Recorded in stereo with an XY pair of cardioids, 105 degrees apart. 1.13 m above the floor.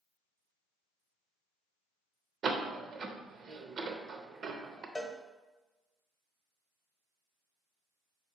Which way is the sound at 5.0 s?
20° left.